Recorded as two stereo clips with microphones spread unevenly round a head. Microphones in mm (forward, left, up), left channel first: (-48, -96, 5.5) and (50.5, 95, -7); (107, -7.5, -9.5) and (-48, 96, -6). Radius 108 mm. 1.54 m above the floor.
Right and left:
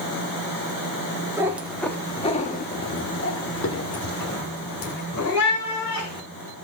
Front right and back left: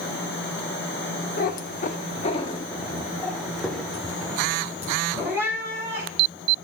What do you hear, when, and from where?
1.4 s a cat meowing: 15° right, 1.2 m; by 6.6 s 135° right, 4 m